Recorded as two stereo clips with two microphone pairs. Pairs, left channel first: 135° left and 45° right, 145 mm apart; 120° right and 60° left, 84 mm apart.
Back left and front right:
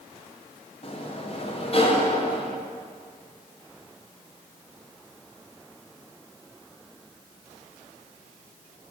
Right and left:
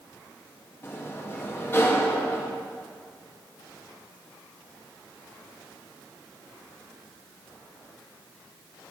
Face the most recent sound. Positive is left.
turn(degrees=180)